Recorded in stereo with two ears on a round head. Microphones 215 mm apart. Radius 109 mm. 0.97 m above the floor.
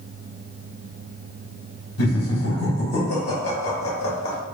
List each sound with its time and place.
2.0 s laughter: 65° left (ahead or behind), 1.6 m